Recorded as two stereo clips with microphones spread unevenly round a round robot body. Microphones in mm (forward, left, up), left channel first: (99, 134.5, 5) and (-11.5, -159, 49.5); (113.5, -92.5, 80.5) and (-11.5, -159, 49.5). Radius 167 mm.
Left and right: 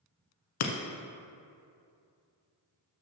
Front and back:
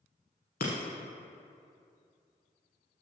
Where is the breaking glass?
65° left, 1.0 m.